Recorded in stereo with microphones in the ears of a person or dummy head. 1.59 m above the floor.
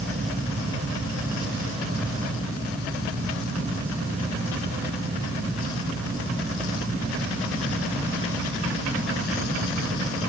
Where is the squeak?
I don't hear a squeak.